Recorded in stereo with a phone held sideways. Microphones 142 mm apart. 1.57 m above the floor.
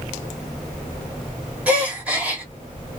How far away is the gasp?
About 1.2 m.